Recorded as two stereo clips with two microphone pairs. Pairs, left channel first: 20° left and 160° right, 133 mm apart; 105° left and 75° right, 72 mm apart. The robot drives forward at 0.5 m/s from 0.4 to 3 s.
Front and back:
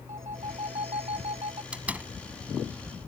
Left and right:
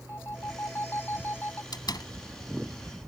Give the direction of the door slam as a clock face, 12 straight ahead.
8 o'clock.